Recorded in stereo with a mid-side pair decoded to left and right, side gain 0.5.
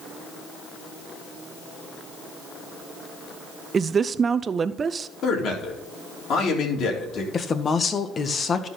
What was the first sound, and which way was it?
A woman speaking, 35° right.